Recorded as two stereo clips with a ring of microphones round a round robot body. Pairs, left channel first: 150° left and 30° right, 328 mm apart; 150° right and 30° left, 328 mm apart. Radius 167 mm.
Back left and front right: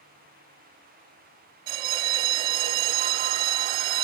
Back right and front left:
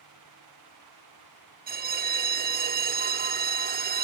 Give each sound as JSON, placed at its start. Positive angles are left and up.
{"t": 1.7, "sound": "a bell", "azimuth_deg": -35}